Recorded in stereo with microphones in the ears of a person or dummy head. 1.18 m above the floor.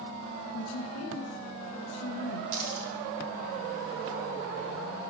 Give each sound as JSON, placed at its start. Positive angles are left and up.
{"t": 0.5, "sound": "a woman speaking", "side_deg": 85, "distance_m": 0.6}
{"t": 2.5, "sound": "a dropped coin", "side_deg": -45, "distance_m": 1.3}